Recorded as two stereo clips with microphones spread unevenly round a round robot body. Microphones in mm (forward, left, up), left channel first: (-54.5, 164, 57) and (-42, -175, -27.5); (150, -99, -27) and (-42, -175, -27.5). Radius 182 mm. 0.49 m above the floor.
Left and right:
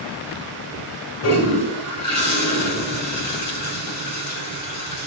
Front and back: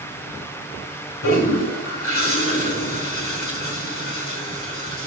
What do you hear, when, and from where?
1.2 s a toilet flushing: 40° left, 2 m